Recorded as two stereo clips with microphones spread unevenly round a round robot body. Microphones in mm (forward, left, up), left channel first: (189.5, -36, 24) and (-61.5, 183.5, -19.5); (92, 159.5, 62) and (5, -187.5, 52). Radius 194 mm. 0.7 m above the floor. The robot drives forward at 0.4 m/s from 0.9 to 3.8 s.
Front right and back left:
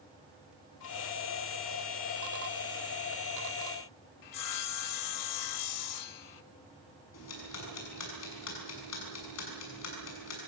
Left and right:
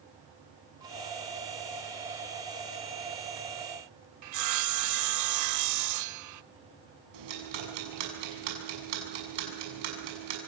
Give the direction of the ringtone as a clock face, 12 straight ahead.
I don't hear a ringtone.